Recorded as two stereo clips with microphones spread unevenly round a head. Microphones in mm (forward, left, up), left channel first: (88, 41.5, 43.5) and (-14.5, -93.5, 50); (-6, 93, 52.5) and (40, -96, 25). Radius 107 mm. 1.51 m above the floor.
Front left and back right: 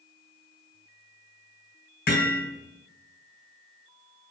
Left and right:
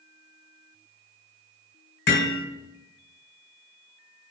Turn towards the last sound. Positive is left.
turn(degrees=95)